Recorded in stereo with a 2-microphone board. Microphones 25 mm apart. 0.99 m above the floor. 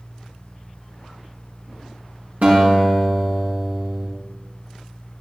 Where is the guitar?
80° right, 6.5 m.